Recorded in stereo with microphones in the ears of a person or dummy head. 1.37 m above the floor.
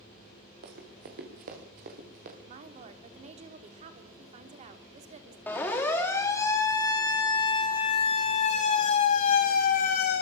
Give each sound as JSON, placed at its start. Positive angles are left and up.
{"t": 0.6, "sound": "running footsteps", "side_deg": -60, "distance_m": 5.0}
{"t": 2.5, "sound": "a woman speaking", "side_deg": -40, "distance_m": 3.0}
{"t": 5.5, "sound": "a siren", "side_deg": 10, "distance_m": 4.5}